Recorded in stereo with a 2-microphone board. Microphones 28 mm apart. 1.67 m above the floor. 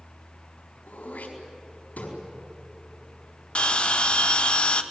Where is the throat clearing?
85° left, 4.5 m.